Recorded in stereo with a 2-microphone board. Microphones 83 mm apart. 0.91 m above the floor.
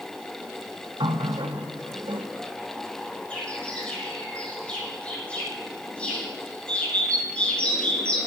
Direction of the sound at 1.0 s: 75° right (ahead or behind).